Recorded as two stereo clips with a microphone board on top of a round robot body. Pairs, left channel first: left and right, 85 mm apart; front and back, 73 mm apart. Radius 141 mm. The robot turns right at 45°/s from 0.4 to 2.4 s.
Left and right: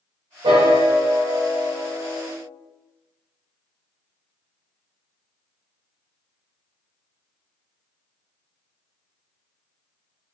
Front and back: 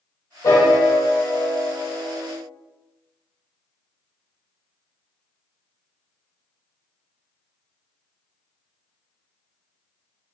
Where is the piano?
55° right, 0.6 m; by 2.3 s 25° left, 0.6 m.